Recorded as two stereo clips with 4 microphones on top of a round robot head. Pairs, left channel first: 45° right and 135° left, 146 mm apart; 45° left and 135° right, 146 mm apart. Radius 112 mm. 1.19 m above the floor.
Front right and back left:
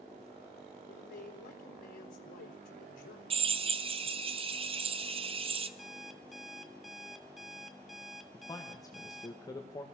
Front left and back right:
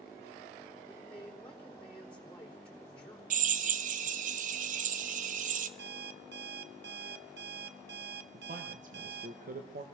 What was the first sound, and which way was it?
A man speaking, 35° right.